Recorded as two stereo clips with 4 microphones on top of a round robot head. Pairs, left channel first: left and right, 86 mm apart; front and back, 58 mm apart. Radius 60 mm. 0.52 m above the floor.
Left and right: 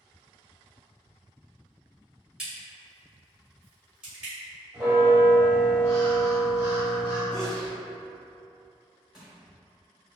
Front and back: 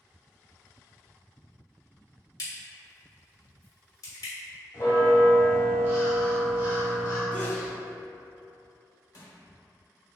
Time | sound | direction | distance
2.4 | a crack | 10° right | 1.2 m
4.7 | a bell | 15° right | 1.5 m
7.3 | a sneeze | 15° left | 1.3 m
9.1 | crushing | 5° right | 0.8 m